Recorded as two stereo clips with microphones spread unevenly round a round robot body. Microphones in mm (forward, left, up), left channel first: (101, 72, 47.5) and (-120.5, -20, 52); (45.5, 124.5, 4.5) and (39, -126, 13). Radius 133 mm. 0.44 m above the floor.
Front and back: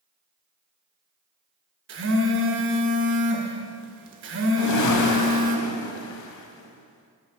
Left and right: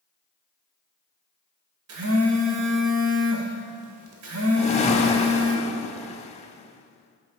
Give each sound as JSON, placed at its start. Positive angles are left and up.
{"t": 1.9, "sound": "a phone buzzing", "azimuth_deg": -125, "distance_m": 1.0}
{"t": 4.6, "sound": "a whoosh", "azimuth_deg": 25, "distance_m": 0.6}